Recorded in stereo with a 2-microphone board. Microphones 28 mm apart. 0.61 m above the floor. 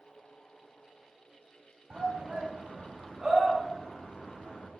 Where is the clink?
I don't hear a clink.